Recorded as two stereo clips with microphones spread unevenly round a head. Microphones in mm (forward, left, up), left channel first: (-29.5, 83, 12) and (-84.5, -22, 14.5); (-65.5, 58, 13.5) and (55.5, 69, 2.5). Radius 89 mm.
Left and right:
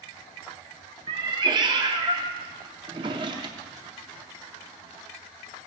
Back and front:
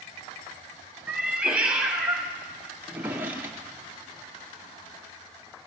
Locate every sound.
1.1 s a cat meowing: 80° right, 0.6 m
2.8 s a drawer: 75° right, 0.5 m